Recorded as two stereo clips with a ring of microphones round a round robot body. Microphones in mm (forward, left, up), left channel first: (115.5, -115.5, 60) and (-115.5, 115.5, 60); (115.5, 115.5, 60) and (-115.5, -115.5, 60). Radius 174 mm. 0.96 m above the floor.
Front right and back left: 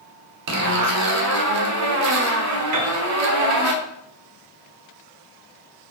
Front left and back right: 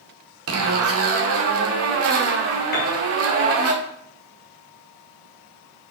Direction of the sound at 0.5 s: 175° left.